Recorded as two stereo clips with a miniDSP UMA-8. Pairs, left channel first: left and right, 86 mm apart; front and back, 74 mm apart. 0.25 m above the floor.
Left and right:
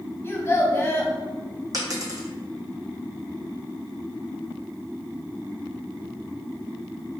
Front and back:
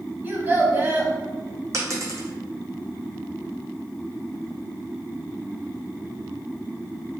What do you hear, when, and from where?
0.2 s a child speaking: 135° left, 0.6 m
1.7 s a dropped coin: 135° right, 0.8 m